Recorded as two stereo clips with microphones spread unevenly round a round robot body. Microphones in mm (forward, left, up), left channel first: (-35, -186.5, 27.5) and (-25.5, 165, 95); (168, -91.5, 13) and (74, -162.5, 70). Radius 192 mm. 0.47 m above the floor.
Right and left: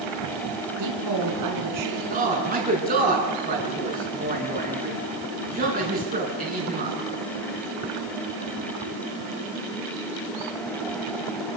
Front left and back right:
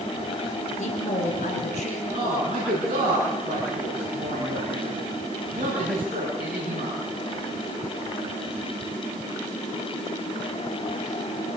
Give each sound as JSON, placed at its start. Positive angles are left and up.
{"t": 0.8, "sound": "a woman speaking", "azimuth_deg": 45, "distance_m": 7.0}
{"t": 2.1, "sound": "a man speaking", "azimuth_deg": 155, "distance_m": 8.5}